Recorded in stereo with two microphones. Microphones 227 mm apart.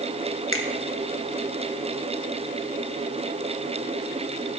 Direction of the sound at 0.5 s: 70° left (ahead or behind).